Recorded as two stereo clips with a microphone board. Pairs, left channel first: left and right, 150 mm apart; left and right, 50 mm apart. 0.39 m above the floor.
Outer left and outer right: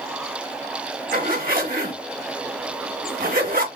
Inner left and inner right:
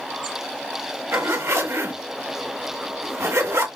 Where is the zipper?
75° right (ahead or behind), 1.7 m.